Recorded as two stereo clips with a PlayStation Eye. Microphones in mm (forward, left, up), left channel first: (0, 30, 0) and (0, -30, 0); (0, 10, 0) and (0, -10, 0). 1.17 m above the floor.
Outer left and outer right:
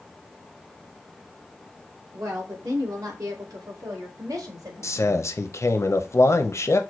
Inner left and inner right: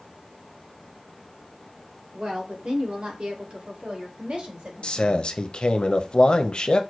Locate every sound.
2.1 s a woman speaking: 55° right (ahead or behind), 2.5 m; by 5.3 s 80° right, 1.4 m
4.8 s a man speaking: 55° left (ahead or behind), 0.6 m